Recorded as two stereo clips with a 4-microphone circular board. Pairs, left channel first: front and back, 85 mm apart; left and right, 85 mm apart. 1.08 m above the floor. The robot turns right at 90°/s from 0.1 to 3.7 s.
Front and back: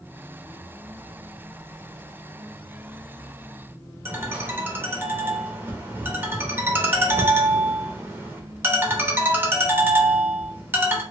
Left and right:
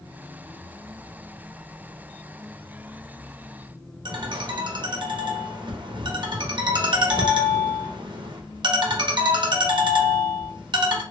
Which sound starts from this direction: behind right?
A ringtone, at 4.0 s.